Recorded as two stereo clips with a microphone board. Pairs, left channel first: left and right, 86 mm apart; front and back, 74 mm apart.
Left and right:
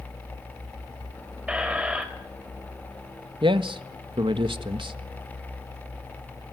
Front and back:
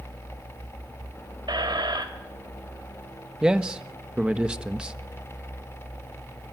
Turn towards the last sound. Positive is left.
turn(degrees=-105)